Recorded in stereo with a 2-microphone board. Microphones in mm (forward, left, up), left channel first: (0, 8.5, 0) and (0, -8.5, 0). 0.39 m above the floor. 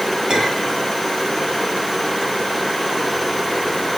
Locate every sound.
0.3 s a clink: 65° right (ahead or behind), 5 m